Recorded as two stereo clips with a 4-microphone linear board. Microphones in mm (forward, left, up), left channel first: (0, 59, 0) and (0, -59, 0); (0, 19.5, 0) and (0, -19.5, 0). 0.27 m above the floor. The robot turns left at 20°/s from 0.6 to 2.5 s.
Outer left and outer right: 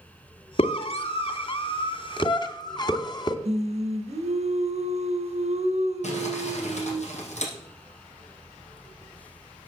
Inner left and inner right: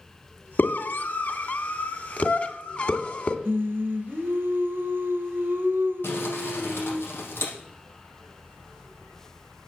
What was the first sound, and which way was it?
A scream, 60° left (ahead or behind).